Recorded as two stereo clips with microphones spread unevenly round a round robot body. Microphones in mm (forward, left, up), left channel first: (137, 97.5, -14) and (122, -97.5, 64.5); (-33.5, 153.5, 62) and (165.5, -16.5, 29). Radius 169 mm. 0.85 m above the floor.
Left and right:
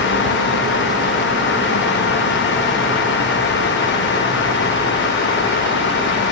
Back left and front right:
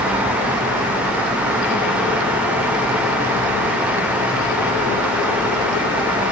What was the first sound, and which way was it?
Only background noise.